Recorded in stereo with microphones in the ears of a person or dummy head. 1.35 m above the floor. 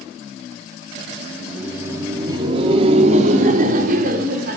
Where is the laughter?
Centre (ahead or behind), 2.5 m; by 4.6 s 55° right (ahead or behind), 4.5 m.